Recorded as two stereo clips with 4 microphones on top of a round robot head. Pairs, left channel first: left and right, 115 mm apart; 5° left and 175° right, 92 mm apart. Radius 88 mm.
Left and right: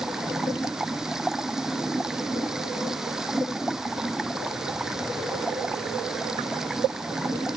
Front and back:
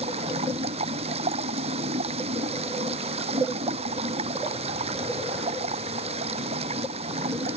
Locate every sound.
0.0 s running water: 175° right